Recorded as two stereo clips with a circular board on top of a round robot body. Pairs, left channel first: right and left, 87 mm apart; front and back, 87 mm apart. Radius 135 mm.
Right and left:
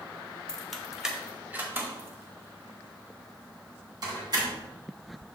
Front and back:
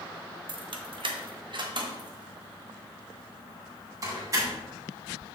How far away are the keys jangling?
About 1.1 m.